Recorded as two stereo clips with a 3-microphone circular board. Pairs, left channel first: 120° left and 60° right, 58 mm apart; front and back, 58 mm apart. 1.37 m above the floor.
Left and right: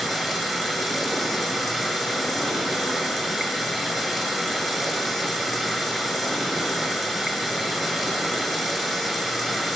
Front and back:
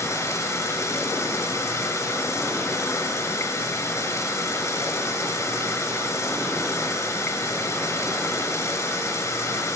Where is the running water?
25° left, 6 m.